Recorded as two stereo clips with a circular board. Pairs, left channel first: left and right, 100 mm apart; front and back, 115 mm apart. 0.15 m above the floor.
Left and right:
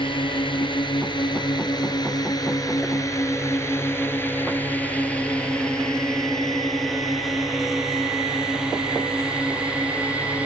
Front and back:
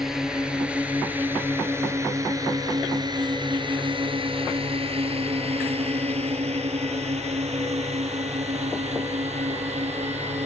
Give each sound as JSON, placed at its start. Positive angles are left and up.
{"t": 0.0, "sound": "a drone", "azimuth_deg": 95}